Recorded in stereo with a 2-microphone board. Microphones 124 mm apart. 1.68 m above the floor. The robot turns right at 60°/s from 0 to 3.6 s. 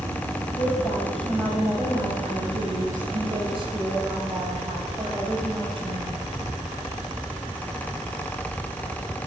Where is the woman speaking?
140° left, 8 m; by 6.3 s 40° right, 8 m.